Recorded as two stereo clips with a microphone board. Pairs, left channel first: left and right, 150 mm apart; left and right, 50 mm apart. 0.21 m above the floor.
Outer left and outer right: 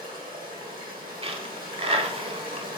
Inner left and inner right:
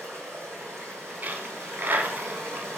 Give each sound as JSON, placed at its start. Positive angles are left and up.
{"t": 0.0, "sound": "running water", "side_deg": -85, "distance_m": 2.0}
{"t": 1.2, "sound": "a dropped coin", "side_deg": -40, "distance_m": 0.6}